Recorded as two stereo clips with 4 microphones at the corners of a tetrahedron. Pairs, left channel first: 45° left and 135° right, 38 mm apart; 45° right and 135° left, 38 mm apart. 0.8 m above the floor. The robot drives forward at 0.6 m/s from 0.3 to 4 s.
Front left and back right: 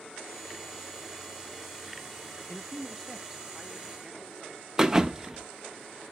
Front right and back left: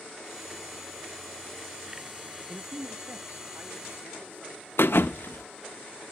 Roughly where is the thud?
Ahead right.